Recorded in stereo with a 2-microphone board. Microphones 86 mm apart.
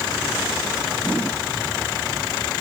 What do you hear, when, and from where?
Only background noise.